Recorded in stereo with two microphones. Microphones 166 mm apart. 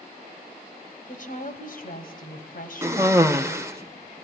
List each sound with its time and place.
1.1 s a woman speaking: 55° left (ahead or behind), 2.5 m
2.8 s a cough: 15° right (ahead or behind), 0.8 m